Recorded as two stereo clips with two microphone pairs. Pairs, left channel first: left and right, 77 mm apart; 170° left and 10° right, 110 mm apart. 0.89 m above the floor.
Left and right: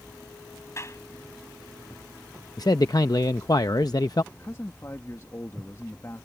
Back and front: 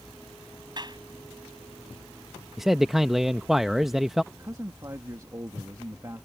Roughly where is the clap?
Ahead left.